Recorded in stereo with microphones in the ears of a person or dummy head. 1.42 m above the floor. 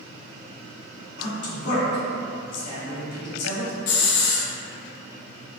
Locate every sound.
1.2 s a man speaking: 80° left, 1.5 m
3.9 s a hiss: 60° left (ahead or behind), 0.7 m